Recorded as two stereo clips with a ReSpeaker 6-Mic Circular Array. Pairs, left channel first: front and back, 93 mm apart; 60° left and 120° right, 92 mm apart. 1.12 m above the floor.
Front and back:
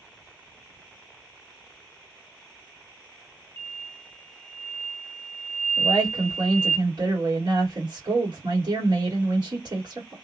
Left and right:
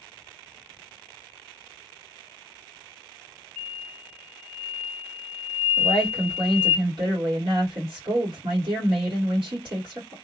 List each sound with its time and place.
3.6 s an explosion: 145° left, 0.6 m
5.8 s a woman speaking: 140° right, 1.6 m